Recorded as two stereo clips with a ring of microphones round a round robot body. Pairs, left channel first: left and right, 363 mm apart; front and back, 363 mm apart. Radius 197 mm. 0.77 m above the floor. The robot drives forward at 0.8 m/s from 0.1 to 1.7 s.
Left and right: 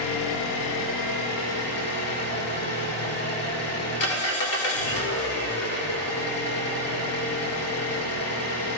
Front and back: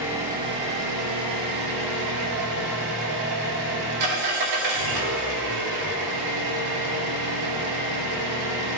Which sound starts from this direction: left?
An engine running, at 0.0 s.